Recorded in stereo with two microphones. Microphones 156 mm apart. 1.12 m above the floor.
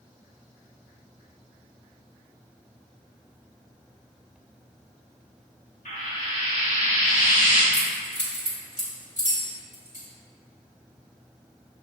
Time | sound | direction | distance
5.8 | frying | 60° left (ahead or behind) | 1.1 m
7.7 | keys jangling | 60° right (ahead or behind) | 1.5 m